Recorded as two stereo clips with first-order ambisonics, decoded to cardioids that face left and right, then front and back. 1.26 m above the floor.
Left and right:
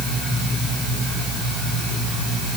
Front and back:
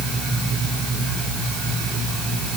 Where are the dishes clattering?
I don't hear dishes clattering.